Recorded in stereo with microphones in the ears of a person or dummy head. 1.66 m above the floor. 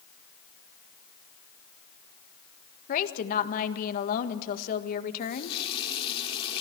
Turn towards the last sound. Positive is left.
turn(degrees=35)  # may be behind; listen again after turning